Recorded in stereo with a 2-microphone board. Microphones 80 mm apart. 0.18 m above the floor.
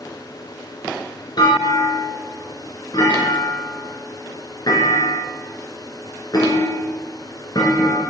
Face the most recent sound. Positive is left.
turn(degrees=60)  # may be behind; listen again after turning